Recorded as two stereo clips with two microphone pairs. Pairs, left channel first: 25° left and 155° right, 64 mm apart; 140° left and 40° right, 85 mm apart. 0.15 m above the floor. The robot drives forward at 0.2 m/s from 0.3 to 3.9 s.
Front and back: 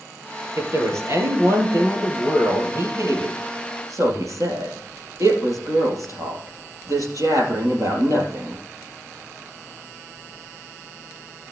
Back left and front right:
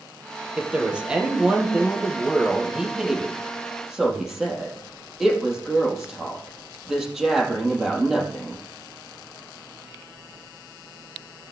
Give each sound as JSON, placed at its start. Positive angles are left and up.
{"t": 0.6, "sound": "a woman speaking", "azimuth_deg": -115, "distance_m": 3.0}